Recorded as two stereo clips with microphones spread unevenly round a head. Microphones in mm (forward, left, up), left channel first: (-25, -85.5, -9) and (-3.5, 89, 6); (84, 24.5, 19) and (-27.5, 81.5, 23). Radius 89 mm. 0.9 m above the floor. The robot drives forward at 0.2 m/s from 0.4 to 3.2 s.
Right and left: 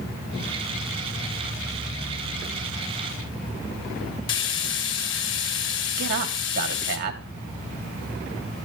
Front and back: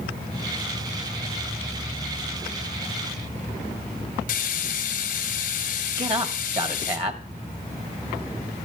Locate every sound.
4.3 s frying: 75° right, 2 m
6.0 s a man speaking: 115° left, 2.5 m